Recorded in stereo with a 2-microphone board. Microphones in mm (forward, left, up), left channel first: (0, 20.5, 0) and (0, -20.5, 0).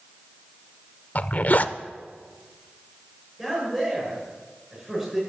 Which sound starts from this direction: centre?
A man speaking, at 3.4 s.